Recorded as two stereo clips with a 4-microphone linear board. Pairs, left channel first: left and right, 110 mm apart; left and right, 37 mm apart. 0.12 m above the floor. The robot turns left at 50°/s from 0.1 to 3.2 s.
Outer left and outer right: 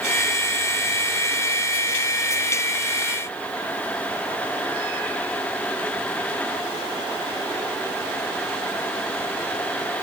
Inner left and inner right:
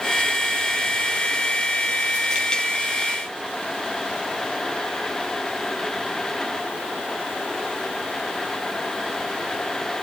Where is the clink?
No clink in this recording.